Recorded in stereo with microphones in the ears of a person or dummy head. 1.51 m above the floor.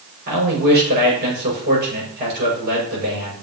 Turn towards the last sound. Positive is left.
turn(degrees=-50)  # may be behind; listen again after turning